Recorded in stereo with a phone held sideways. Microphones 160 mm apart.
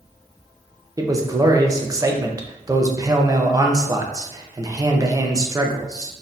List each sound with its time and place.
1.0 s a man speaking: 20° right (ahead or behind), 0.6 m